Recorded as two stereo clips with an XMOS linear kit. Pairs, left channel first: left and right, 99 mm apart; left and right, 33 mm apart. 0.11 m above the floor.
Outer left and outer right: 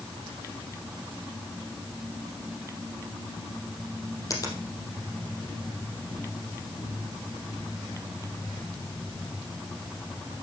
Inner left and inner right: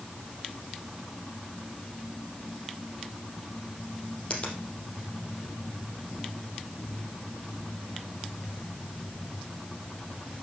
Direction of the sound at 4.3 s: 35° left (ahead or behind).